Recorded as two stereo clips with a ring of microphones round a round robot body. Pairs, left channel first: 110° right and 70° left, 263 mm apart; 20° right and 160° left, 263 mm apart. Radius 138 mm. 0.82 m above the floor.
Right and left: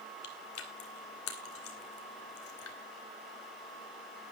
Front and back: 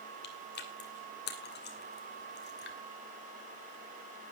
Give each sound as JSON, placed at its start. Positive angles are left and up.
{"t": 0.2, "sound": "chewing", "azimuth_deg": -75, "distance_m": 2.5}